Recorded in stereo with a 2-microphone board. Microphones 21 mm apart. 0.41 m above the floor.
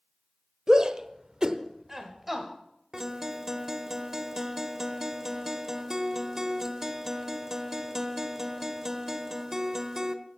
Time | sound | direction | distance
0.7 | a shout | 35° right (ahead or behind) | 1.4 m
2.9 | a guitar | 25° right (ahead or behind) | 1.1 m